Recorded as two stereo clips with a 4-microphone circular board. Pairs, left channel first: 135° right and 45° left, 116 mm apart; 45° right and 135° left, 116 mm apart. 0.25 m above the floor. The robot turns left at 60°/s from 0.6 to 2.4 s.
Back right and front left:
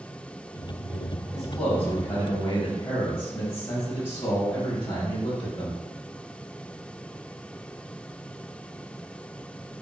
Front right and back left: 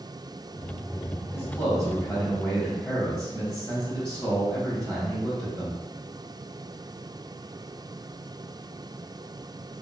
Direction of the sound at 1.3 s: 50° right.